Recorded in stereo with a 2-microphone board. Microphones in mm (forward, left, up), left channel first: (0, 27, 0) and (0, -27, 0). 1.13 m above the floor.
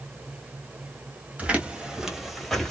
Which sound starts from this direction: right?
Footsteps, at 1.4 s.